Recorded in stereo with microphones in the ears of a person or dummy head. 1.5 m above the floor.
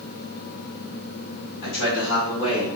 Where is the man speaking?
75° left (ahead or behind), 1.5 m; by 2.7 s 30° left (ahead or behind), 1.9 m.